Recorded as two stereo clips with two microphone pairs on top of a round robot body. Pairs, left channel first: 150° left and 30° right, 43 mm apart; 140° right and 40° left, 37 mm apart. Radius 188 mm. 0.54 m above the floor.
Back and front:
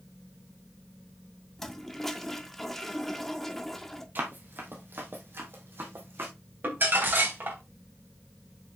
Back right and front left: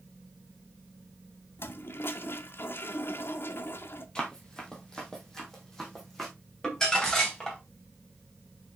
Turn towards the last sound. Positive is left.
turn(degrees=-70)